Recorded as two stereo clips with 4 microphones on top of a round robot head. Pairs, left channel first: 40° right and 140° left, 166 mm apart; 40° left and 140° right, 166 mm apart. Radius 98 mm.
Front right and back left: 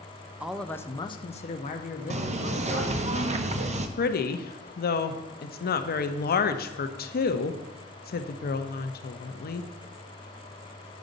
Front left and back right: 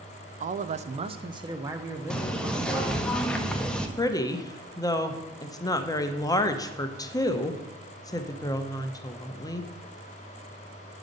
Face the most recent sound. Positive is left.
turn(degrees=-30)